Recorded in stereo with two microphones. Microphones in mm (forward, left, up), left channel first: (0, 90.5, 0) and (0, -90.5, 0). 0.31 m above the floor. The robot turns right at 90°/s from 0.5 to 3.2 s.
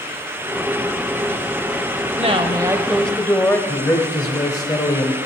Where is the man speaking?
20° left (ahead or behind), 1.3 m.